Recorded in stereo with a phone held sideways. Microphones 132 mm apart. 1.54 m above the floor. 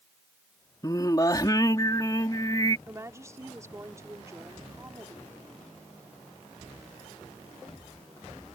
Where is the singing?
30° left (ahead or behind).